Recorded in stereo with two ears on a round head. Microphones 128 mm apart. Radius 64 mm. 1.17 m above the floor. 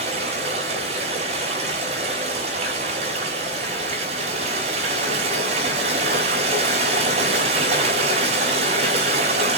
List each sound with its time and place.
0.0 s running water: 45° right (ahead or behind), 5.5 m